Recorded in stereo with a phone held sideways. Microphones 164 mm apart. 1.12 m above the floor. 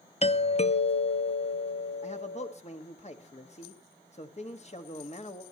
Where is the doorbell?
40° left (ahead or behind), 0.6 m.